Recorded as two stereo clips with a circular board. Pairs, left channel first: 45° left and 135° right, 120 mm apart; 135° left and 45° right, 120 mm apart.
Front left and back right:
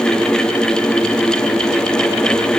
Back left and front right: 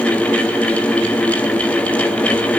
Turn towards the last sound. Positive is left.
No sound to turn to.